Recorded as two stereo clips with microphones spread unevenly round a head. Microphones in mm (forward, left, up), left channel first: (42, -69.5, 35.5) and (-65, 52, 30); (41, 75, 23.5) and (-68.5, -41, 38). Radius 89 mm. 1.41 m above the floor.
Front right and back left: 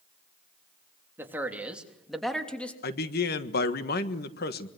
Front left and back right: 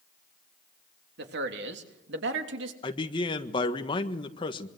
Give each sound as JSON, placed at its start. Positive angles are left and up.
{"t": 1.2, "sound": "a man speaking", "azimuth_deg": -150, "distance_m": 3.0}
{"t": 2.8, "sound": "a man speaking", "azimuth_deg": -15, "distance_m": 1.6}